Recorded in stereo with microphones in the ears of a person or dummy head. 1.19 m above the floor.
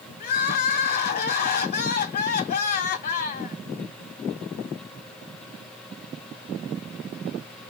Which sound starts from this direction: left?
Crying, at 0.2 s.